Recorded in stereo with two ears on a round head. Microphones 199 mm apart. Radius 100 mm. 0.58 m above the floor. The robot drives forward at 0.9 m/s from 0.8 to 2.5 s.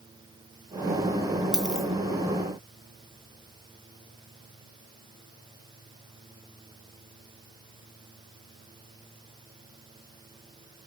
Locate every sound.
1.5 s a dropped coin: 5° right (ahead or behind), 2.5 m